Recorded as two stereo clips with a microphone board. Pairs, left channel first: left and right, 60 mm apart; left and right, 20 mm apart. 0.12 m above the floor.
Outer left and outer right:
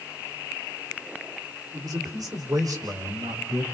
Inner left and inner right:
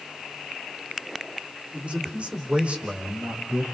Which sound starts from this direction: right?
A man speaking, at 1.7 s.